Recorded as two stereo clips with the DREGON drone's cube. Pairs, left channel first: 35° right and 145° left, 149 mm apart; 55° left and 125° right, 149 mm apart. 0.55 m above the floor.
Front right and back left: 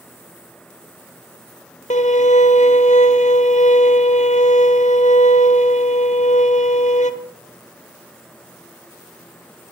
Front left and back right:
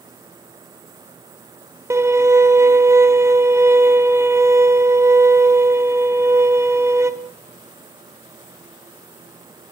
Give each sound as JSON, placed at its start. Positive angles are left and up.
{"t": 1.9, "sound": "a violin", "azimuth_deg": -55, "distance_m": 1.6}